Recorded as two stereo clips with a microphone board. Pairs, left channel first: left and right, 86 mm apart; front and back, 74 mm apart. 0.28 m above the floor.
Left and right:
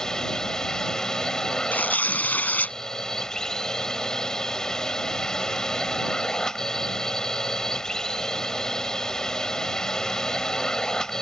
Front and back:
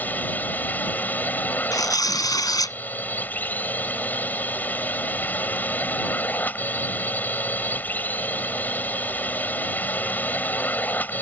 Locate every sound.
0.0 s a drone: 15° left
1.7 s tearing paper: 20° left